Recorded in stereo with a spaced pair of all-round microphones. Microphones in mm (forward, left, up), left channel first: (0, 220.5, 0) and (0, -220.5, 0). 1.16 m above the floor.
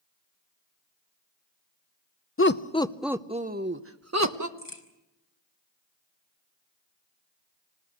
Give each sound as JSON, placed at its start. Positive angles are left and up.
{"t": 2.4, "sound": "laughter", "side_deg": 30, "distance_m": 0.7}
{"t": 4.6, "sound": "a crack", "side_deg": 70, "distance_m": 3.0}